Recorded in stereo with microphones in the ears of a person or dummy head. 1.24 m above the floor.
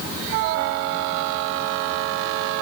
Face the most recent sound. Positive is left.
No sound to turn to.